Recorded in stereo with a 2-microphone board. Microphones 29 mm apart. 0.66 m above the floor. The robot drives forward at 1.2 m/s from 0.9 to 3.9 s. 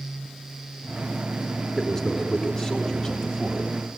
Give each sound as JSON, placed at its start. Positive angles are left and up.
{"t": 1.8, "sound": "a man speaking", "side_deg": 15, "distance_m": 5.5}